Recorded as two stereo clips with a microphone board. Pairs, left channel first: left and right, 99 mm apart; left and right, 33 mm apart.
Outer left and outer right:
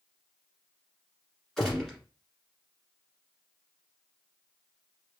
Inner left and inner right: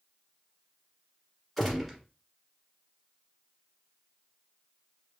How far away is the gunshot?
About 1.4 m.